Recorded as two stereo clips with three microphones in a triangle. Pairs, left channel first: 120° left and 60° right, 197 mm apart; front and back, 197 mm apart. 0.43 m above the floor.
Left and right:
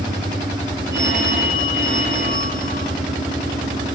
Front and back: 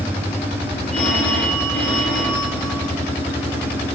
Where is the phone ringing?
80° right, 6.5 m.